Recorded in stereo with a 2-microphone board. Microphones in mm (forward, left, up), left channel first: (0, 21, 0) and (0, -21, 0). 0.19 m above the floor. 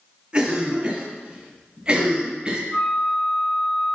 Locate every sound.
0.3 s a cough: 25° right (ahead or behind), 2 m
2.7 s a flute: 35° right (ahead or behind), 3 m